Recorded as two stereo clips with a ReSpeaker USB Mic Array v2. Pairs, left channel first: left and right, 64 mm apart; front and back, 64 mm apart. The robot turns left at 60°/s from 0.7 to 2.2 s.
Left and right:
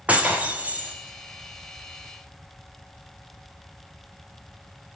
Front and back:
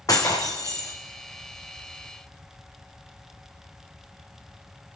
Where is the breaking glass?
20° right, 3.5 m; by 0.9 s 35° right, 3.5 m.